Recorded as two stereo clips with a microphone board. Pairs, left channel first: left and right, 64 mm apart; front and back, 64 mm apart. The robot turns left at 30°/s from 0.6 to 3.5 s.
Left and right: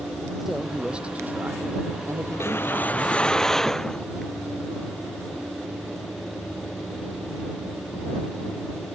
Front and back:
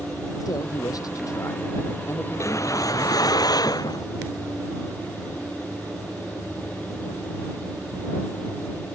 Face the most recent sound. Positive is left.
turn(degrees=5)